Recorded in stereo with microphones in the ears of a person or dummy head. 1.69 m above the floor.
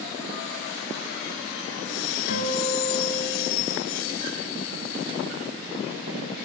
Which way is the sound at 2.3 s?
55° left (ahead or behind).